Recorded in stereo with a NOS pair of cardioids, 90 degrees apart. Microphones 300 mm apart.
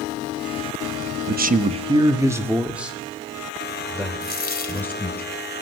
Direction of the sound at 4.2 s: 30° left.